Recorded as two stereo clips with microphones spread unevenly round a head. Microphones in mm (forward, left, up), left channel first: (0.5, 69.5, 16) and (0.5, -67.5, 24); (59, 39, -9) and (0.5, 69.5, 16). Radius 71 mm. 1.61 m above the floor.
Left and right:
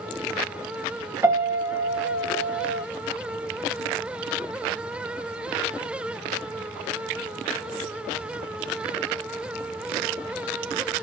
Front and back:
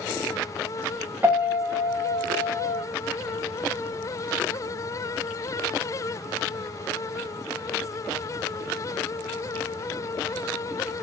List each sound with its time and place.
1.2 s a piano: 160° right, 1.0 m